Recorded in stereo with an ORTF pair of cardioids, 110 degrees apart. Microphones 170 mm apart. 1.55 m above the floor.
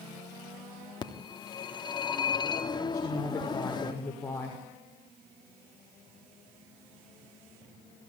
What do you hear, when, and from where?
1.0 s a phone ringing: 25° left, 3 m
2.9 s a woman speaking: 20° left, 6 m